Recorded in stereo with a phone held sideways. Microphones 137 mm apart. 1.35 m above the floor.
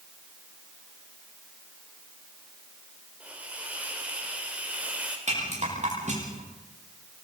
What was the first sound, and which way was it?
A hiss, 10° right (ahead or behind).